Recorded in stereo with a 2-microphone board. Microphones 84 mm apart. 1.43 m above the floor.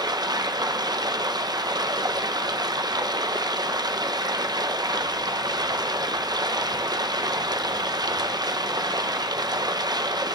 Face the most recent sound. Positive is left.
turn(degrees=-60)  # may be behind; listen again after turning